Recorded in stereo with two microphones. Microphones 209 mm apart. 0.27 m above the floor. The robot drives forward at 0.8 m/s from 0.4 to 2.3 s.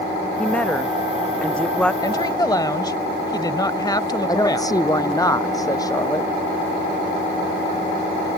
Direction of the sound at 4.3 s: 15° left (ahead or behind).